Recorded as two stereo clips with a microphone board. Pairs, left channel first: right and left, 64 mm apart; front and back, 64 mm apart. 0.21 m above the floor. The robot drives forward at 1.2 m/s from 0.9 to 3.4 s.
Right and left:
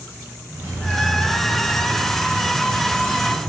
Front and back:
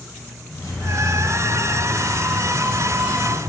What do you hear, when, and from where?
0.5 s keys jangling: 30° left, 2.5 m; by 3.4 s 125° left, 1.6 m